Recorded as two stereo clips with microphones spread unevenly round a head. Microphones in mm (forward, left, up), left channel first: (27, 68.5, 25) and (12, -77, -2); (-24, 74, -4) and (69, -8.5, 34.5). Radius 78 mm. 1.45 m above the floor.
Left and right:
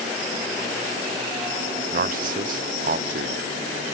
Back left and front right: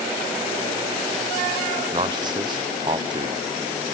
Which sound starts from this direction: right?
A man speaking, at 1.9 s.